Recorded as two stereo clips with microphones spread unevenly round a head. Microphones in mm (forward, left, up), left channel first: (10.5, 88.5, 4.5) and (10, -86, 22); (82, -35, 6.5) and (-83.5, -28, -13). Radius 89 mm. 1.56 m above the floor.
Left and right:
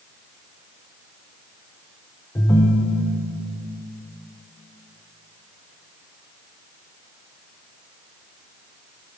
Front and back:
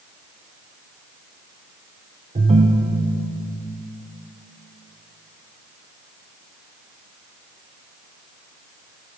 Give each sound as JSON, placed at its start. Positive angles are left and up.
{"t": 2.4, "sound": "a ringtone", "azimuth_deg": 155, "distance_m": 0.6}